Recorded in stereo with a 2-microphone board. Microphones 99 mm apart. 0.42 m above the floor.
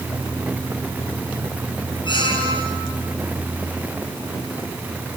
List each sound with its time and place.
2.0 s a squeak: 50° left (ahead or behind), 5 m